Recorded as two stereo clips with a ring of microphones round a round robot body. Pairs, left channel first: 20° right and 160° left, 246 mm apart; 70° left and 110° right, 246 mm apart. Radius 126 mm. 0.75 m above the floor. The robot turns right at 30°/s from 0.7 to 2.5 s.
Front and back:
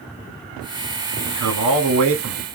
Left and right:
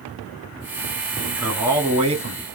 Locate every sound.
1.2 s a man speaking: 155° left, 1.8 m; by 2.4 s 165° right, 1.8 m